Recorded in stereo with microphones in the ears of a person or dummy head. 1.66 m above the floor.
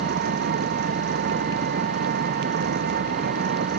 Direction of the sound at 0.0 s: 50° right (ahead or behind).